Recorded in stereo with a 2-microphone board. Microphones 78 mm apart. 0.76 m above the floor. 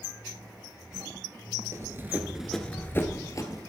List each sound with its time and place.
1.7 s running footsteps: 40° right (ahead or behind), 0.9 m; by 3.6 s 50° left (ahead or behind), 1.2 m